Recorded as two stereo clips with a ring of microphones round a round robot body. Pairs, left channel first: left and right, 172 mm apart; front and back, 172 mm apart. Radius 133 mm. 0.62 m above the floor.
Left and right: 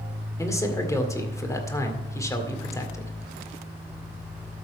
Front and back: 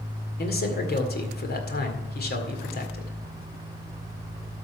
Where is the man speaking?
20° left, 2 m.